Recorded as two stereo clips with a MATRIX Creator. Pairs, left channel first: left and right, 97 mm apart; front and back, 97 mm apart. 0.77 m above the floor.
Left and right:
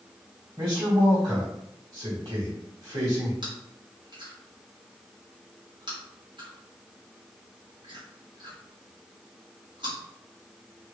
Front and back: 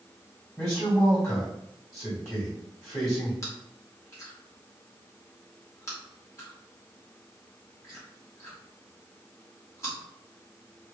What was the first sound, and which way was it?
A man speaking, 55° right.